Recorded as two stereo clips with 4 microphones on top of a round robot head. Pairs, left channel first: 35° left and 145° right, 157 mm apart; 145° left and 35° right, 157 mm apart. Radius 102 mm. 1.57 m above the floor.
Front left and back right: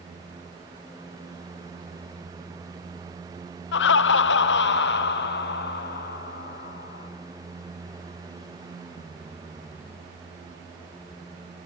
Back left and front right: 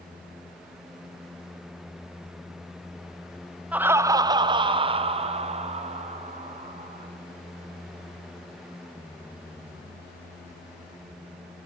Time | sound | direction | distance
3.7 | laughter | 45° left | 0.6 m